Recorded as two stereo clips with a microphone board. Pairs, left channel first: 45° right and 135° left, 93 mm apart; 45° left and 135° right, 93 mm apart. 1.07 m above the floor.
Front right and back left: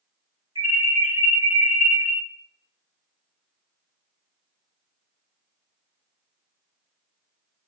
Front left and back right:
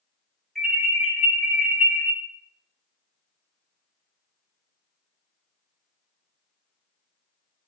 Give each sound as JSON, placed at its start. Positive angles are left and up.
{"t": 0.6, "sound": "an alarm", "azimuth_deg": 135, "distance_m": 4.0}